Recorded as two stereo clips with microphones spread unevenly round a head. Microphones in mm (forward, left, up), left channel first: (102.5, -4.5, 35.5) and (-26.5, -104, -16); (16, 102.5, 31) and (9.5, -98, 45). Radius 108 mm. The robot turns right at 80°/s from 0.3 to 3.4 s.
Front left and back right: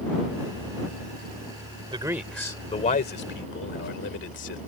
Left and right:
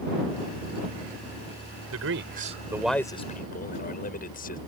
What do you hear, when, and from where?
1.9 s a man speaking: 80° right; by 4.6 s 40° left